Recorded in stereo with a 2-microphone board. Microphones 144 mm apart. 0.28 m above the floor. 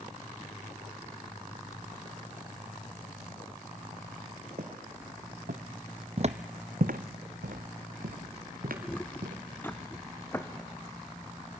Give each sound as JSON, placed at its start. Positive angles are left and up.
{"t": 4.6, "sound": "footsteps", "side_deg": -70, "distance_m": 2.0}
{"t": 6.2, "sound": "footsteps", "side_deg": -45, "distance_m": 0.7}
{"t": 8.8, "sound": "footsteps", "side_deg": 10, "distance_m": 1.0}